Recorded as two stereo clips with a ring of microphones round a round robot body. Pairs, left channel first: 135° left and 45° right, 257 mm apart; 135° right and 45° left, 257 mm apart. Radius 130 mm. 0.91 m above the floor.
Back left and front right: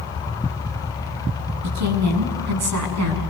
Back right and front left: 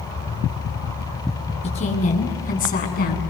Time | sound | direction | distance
1.6 | a woman speaking | 70° right | 7 m